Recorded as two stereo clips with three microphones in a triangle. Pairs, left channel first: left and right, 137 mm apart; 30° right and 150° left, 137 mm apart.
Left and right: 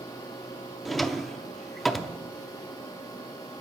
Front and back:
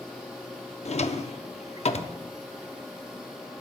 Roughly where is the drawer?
Ahead.